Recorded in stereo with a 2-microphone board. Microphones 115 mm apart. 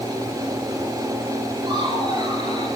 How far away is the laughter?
About 8 m.